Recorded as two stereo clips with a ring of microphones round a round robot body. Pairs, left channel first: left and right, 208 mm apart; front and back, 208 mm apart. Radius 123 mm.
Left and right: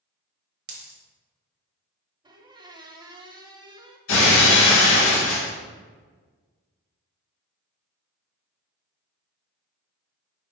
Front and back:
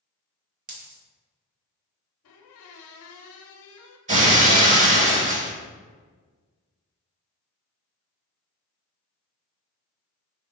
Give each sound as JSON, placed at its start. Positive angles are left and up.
{"t": 0.7, "sound": "a dropped coin", "azimuth_deg": -130, "distance_m": 1.0}
{"t": 2.2, "sound": "a squeak", "azimuth_deg": -20, "distance_m": 0.6}
{"t": 4.1, "sound": "breaking glass", "azimuth_deg": 125, "distance_m": 1.2}